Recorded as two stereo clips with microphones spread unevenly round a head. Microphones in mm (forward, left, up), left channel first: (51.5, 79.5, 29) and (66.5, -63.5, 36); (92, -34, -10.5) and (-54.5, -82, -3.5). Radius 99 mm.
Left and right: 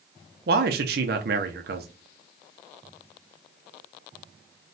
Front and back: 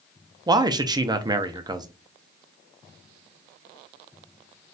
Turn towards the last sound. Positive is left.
turn(degrees=-100)